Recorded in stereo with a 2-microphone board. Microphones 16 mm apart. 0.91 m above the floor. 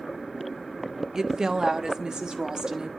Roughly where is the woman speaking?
Right.